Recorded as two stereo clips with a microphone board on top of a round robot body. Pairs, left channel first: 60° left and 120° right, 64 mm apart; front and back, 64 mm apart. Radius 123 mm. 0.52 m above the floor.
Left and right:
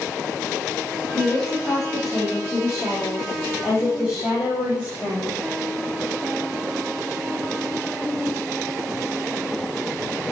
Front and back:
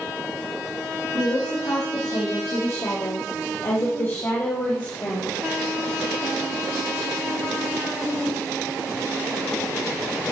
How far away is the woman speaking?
About 4.5 m.